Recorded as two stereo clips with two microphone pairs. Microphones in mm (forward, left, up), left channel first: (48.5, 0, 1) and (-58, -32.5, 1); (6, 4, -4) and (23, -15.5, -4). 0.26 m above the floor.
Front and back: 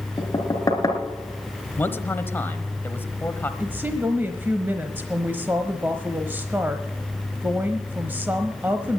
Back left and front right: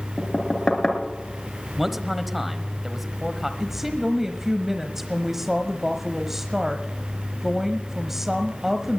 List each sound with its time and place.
0.2 s knocking: 75° left, 2.5 m
1.8 s a man speaking: 15° left, 1.0 m
3.6 s a woman speaking: 110° right, 1.0 m